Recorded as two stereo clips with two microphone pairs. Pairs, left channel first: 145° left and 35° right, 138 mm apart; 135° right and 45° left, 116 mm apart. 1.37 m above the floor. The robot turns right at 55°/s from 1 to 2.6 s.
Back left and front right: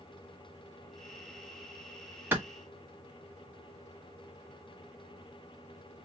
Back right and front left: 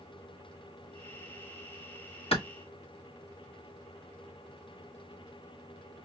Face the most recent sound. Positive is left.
turn(degrees=-95)